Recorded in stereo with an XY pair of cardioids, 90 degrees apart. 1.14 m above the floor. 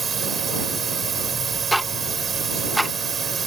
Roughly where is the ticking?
Ahead.